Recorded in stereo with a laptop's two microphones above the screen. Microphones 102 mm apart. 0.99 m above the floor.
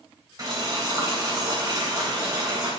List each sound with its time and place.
0.4 s boiling: 40° right (ahead or behind), 3 m